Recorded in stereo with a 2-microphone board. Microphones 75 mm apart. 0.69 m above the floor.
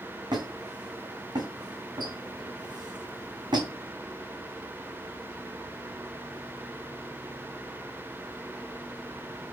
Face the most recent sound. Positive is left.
turn(degrees=-70)  # may be behind; listen again after turning